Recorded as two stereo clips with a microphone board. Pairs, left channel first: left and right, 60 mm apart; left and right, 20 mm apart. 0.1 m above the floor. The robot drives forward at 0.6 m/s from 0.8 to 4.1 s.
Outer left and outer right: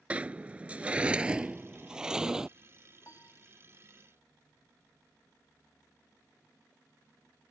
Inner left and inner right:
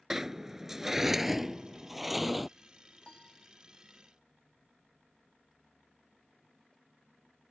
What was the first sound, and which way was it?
A sliding door, 20° right (ahead or behind).